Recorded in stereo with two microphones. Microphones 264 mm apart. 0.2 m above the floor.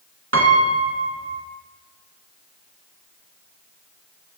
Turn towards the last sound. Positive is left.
turn(degrees=-60)  # may be behind; listen again after turning